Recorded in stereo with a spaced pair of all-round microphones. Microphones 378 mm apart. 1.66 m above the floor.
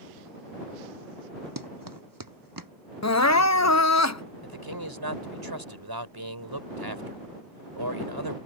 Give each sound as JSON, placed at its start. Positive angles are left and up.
{"t": 1.6, "sound": "running footsteps", "side_deg": -60}
{"t": 3.0, "sound": "crying", "side_deg": 45}
{"t": 4.4, "sound": "a man speaking", "side_deg": -75}